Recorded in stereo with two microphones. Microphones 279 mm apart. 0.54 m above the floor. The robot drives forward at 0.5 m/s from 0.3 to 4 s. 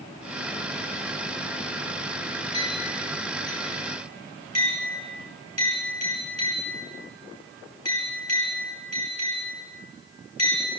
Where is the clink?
65° left (ahead or behind), 9 m; by 10.7 s 60° left (ahead or behind), 9 m.